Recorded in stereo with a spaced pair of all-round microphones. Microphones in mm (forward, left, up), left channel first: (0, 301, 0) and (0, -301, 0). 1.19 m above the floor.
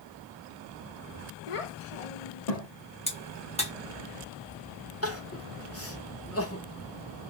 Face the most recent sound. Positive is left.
turn(degrees=25)  # may be behind; listen again after turning